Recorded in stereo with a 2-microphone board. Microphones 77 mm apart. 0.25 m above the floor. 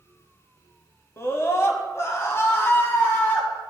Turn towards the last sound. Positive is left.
turn(degrees=30)  # may be behind; listen again after turning